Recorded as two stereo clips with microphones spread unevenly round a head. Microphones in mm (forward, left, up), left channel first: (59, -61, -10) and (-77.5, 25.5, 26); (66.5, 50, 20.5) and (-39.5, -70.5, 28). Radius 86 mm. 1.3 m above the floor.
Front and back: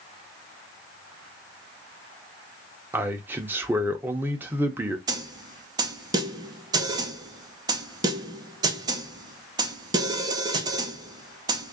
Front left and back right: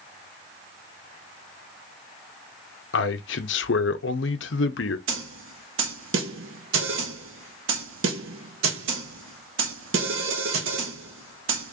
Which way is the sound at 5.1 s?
150° right.